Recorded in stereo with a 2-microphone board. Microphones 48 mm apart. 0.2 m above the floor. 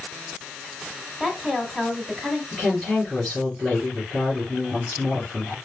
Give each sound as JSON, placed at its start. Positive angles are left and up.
{"t": 1.2, "sound": "a woman speaking", "side_deg": -5, "distance_m": 1.1}
{"t": 2.5, "sound": "a woman speaking", "side_deg": -10, "distance_m": 3.0}